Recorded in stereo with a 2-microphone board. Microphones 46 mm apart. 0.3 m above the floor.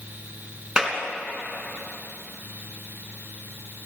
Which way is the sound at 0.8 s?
20° right (ahead or behind).